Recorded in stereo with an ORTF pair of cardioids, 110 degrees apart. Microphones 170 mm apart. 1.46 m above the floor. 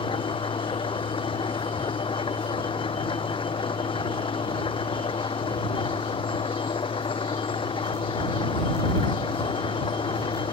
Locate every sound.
0.0 s an engine running: 30° left